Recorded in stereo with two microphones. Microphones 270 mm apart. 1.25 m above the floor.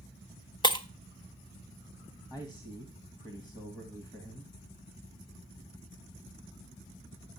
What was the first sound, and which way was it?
Breaking glass, 15° left (ahead or behind).